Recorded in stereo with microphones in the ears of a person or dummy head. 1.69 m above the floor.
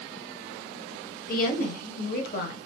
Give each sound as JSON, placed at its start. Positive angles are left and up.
{"t": 1.3, "sound": "a woman speaking", "side_deg": 55, "distance_m": 0.7}